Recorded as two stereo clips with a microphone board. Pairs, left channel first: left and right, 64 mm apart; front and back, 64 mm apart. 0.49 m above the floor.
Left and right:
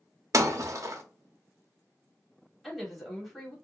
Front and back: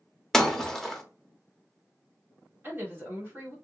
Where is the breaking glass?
85° right, 0.6 m.